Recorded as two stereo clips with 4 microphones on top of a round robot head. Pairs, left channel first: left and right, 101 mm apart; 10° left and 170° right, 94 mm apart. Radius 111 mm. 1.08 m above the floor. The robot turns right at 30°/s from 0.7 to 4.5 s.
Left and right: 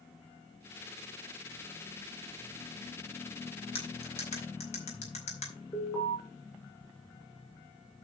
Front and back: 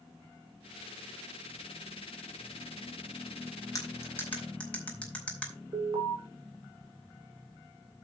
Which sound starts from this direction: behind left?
An alarm, at 5.7 s.